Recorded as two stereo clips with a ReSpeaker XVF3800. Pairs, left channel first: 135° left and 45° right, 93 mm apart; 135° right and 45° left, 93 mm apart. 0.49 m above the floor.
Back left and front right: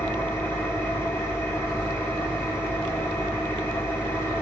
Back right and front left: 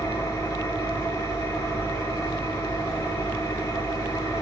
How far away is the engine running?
About 0.7 m.